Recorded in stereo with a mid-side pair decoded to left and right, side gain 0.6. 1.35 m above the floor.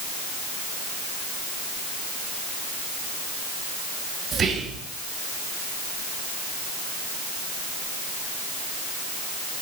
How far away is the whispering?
About 1.1 m.